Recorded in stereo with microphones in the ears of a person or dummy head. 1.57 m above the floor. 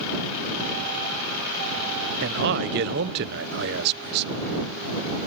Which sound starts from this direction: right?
A man speaking, at 2.2 s.